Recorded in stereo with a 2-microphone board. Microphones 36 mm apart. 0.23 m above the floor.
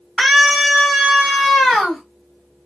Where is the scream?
5° right (ahead or behind), 1.6 m; by 2.0 s 10° left (ahead or behind), 1.8 m.